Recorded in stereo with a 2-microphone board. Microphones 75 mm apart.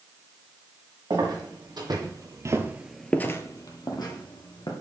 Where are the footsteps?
75° right (ahead or behind), 2.5 m; by 4.7 s 70° left (ahead or behind), 2.5 m.